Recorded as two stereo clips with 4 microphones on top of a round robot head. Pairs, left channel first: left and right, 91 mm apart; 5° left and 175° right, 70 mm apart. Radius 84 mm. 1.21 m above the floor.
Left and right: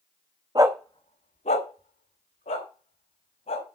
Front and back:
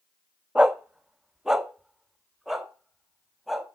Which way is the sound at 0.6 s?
95° right.